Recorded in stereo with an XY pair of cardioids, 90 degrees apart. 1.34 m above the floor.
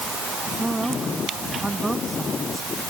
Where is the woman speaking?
15° right.